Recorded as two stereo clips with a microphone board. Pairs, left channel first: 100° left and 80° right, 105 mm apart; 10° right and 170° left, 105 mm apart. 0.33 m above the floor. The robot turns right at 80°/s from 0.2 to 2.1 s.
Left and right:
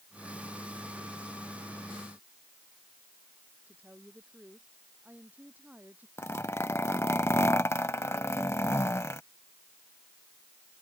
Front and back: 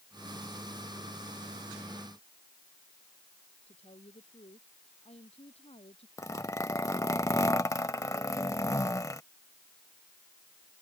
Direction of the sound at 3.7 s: 5° right.